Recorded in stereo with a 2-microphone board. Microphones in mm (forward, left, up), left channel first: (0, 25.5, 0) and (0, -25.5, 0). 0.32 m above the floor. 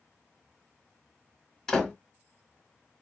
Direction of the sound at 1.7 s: 5° left (ahead or behind).